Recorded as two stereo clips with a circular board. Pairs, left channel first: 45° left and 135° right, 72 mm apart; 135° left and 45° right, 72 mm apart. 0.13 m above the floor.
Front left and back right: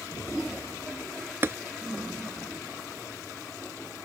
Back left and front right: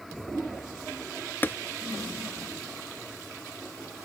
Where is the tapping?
175° right.